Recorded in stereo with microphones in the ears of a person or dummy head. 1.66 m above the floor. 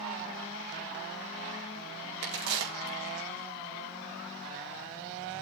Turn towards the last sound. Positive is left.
turn(degrees=-70)  # may be behind; listen again after turning